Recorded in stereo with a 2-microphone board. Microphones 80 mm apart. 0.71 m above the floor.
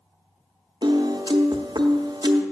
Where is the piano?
65° right (ahead or behind), 0.7 m.